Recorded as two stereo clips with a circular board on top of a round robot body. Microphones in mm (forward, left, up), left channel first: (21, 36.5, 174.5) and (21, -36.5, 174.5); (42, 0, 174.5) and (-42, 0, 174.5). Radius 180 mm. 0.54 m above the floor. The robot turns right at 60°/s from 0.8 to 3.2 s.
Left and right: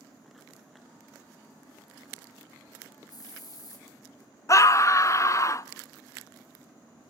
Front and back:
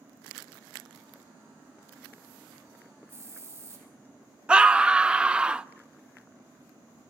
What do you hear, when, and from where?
3.1 s a hiss: 115° left, 5.5 m; by 3.9 s 120° left, 5.5 m
4.5 s a scream: 105° left, 0.8 m